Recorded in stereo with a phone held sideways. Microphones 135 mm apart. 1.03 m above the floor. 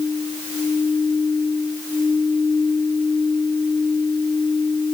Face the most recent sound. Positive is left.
No sound to turn to.